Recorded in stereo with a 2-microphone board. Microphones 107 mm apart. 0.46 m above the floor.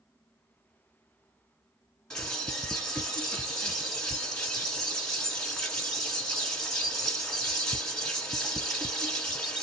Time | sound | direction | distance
2.1 | a bird | 5° left (ahead or behind) | 1.1 m